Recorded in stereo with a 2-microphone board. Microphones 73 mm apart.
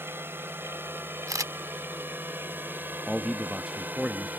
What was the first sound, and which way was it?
A drone, 35° right (ahead or behind).